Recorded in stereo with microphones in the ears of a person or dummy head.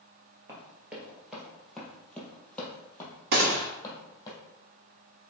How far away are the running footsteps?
About 2.0 m.